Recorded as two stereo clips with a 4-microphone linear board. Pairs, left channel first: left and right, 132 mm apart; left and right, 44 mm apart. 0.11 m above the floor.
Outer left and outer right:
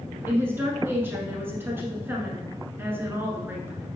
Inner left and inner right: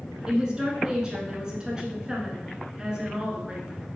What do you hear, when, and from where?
0.3 s a woman speaking: 15° right (ahead or behind), 1.0 m